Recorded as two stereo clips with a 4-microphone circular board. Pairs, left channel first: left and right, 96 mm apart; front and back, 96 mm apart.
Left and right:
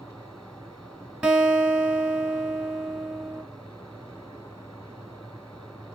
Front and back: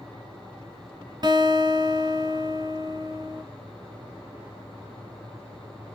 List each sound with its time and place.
1.2 s a guitar: 165° right, 1.1 m